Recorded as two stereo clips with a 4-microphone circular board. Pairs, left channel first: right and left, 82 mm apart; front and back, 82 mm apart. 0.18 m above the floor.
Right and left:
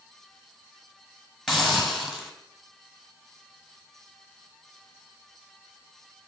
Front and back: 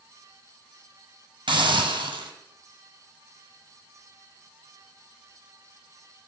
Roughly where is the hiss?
Behind.